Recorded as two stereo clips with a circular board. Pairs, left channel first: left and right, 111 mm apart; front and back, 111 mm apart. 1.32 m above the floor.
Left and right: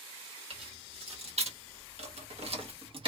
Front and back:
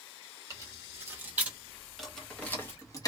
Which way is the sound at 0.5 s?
120° right.